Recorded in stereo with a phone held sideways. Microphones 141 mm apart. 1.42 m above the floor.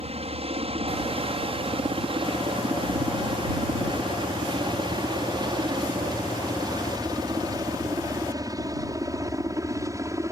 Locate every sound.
0.0 s a helicopter: 45° right (ahead or behind); by 10.3 s 20° right (ahead or behind)